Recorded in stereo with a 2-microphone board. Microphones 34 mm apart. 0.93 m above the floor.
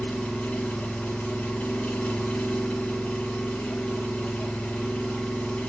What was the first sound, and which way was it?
An engine running, 35° left (ahead or behind).